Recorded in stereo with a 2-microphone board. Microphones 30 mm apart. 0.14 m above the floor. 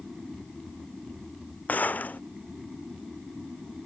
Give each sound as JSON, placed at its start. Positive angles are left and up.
{"t": 1.7, "sound": "a gunshot", "side_deg": 60}